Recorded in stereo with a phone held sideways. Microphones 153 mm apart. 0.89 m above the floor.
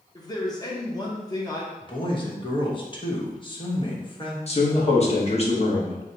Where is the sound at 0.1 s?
25° left (ahead or behind), 0.8 m.